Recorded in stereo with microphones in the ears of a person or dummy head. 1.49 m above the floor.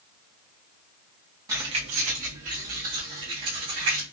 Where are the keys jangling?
20° right (ahead or behind), 0.5 m; by 4.0 s 55° right (ahead or behind), 2 m.